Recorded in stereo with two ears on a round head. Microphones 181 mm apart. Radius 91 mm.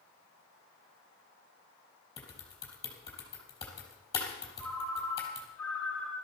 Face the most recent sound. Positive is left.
turn(degrees=5)  # may be behind; listen again after turning